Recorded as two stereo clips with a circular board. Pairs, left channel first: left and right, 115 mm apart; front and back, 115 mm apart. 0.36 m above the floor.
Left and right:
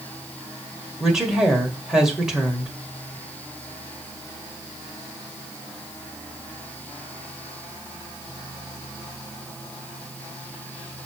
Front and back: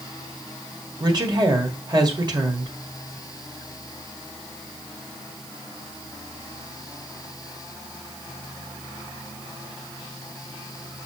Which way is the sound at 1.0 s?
170° right.